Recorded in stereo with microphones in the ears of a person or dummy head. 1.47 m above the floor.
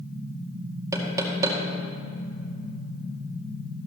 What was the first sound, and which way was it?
Knocking, 20° right (ahead or behind).